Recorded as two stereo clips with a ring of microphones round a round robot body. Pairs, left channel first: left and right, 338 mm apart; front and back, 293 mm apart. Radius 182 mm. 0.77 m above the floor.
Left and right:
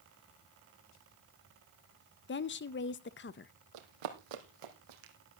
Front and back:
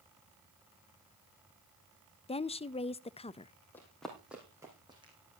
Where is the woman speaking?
60° left, 0.5 m.